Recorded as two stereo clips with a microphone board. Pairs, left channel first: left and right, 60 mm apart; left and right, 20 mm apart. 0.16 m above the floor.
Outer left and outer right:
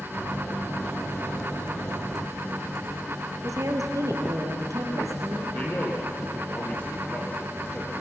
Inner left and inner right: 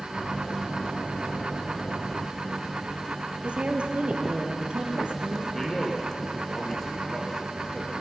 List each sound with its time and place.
3.4 s a woman speaking: 65° right (ahead or behind), 3.5 m
5.5 s a man speaking: 25° left (ahead or behind), 4 m